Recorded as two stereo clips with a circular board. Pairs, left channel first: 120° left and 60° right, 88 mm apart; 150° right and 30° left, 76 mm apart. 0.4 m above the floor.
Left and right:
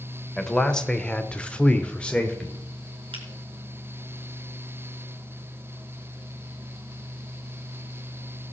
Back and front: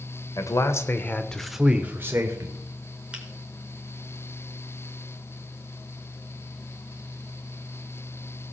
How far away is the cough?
No cough in this recording.